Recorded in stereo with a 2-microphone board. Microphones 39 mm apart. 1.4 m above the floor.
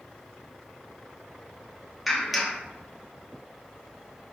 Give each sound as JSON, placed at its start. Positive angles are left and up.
{"t": 2.1, "sound": "a clap", "side_deg": 0, "distance_m": 0.9}